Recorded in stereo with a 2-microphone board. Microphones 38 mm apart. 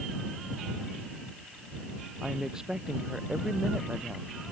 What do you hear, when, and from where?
2.2 s a woman speaking: 15° right (ahead or behind)